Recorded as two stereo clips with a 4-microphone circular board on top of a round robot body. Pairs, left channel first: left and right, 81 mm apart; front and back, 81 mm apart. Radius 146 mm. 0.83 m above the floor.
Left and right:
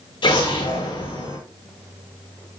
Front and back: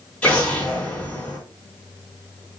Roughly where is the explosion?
Left.